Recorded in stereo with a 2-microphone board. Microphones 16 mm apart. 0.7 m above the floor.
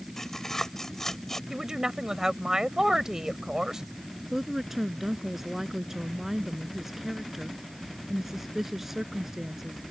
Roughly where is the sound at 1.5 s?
Right.